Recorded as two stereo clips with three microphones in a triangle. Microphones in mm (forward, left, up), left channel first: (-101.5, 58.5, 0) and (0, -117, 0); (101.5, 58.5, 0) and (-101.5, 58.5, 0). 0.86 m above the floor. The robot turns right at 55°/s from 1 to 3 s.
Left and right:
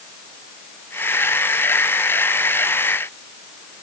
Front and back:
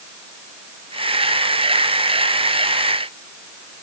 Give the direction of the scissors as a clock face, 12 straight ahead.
No scissors in this recording.